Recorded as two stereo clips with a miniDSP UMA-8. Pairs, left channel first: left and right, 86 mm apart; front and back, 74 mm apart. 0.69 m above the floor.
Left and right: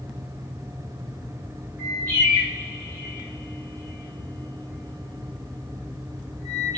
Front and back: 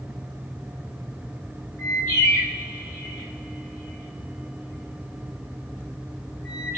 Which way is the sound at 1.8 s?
45° right.